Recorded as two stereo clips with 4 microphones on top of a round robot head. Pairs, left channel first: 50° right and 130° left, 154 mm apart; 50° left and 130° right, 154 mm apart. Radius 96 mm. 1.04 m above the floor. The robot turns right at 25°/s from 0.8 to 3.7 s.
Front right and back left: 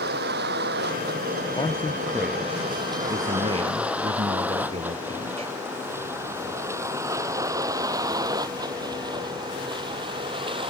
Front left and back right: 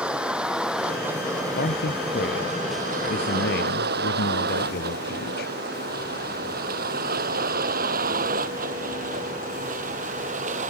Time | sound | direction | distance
0.0 | a vehicle | 145° left | ?
1.6 | a man speaking | 20° left | ?